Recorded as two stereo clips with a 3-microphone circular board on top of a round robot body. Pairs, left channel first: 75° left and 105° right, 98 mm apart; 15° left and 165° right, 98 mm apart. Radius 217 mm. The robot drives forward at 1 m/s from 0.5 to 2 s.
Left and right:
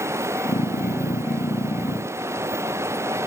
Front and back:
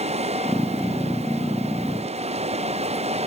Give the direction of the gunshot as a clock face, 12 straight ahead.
I don't hear a gunshot.